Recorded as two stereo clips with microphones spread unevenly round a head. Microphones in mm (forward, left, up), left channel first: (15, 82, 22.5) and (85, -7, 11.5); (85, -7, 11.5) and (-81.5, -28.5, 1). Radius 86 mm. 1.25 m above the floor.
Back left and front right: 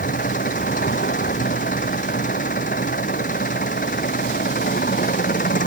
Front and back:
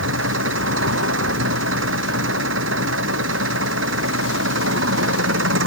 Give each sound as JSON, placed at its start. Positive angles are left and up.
{"t": 0.0, "sound": "an engine running", "azimuth_deg": 165}